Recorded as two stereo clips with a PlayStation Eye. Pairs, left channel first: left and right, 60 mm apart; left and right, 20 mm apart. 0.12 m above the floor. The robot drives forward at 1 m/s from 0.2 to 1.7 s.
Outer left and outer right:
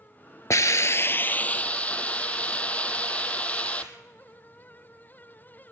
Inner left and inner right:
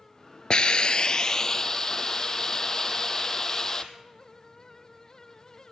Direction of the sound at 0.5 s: 55° left (ahead or behind).